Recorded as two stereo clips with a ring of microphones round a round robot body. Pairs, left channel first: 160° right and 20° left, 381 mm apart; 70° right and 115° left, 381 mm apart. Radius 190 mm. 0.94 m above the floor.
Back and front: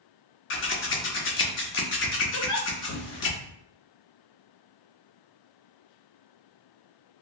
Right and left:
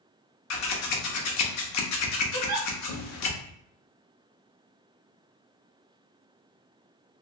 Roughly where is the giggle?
Behind left.